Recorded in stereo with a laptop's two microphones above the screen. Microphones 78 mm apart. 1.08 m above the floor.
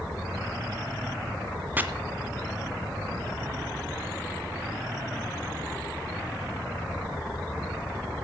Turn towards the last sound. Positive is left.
turn(degrees=-25)  # may be behind; listen again after turning